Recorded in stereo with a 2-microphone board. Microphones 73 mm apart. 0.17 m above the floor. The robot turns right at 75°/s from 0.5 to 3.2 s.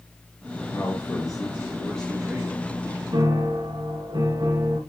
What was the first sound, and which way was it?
A man speaking, 70° left.